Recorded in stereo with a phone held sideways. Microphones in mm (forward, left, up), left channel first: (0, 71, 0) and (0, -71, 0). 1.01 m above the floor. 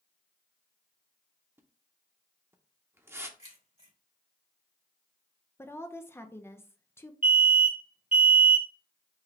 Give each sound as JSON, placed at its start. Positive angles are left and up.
{"t": 1.6, "sound": "a splash", "side_deg": -15, "distance_m": 0.7}
{"t": 3.4, "sound": "keys jangling", "side_deg": 50, "distance_m": 2.5}
{"t": 5.6, "sound": "a woman speaking", "side_deg": 15, "distance_m": 0.6}
{"t": 7.2, "sound": "an alarm", "side_deg": -70, "distance_m": 1.6}